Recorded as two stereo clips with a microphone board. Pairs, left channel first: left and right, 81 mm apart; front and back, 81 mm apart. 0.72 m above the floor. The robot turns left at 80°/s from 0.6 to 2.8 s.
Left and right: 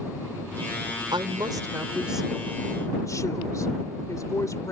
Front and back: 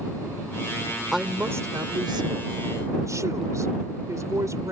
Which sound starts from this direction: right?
A woman speaking, at 1.1 s.